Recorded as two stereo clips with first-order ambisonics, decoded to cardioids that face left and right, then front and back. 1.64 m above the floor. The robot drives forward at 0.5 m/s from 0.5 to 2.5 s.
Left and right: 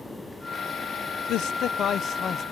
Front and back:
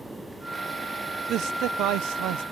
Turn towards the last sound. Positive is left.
turn(degrees=155)